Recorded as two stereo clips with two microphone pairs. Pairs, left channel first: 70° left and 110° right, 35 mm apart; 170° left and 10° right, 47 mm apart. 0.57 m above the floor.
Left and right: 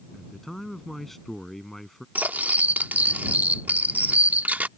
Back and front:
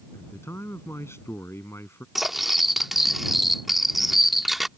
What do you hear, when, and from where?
0.1 s a man speaking: 155° left
2.1 s cutlery clinking: 95° right